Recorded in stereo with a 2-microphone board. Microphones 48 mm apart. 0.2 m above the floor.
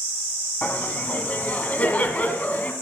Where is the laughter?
30° left (ahead or behind), 1.4 m.